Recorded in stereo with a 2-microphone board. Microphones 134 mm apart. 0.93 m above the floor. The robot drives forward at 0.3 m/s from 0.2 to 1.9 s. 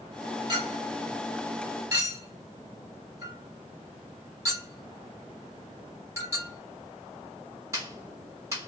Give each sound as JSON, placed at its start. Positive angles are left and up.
{"t": 0.5, "sound": "a clink", "side_deg": -30, "distance_m": 1.2}